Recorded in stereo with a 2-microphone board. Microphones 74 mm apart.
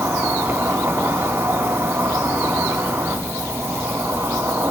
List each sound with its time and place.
0.0 s an insect: 40° right (ahead or behind), 2.0 m